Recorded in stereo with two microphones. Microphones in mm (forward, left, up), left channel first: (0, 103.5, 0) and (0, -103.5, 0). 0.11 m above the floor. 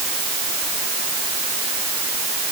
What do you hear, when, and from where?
Only background noise.